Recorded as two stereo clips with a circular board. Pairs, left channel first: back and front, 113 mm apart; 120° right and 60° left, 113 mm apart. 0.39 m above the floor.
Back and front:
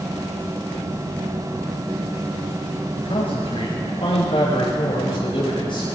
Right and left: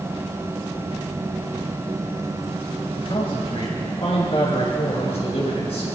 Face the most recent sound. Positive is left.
turn(degrees=-140)